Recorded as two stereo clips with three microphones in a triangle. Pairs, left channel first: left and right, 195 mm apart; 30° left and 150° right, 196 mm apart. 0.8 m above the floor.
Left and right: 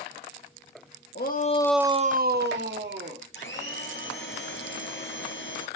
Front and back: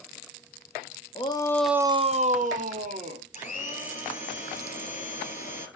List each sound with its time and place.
1.1 s a shout: 85° left, 0.9 m; by 3.2 s 100° right, 2 m
3.3 s a blender: 80° left, 3.5 m